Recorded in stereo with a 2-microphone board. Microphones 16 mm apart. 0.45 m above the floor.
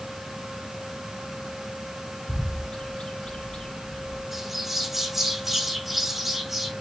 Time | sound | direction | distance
2.3 | a bird | 75° left (ahead or behind) | 1.5 m
4.3 | a bird | 10° right (ahead or behind) | 2.5 m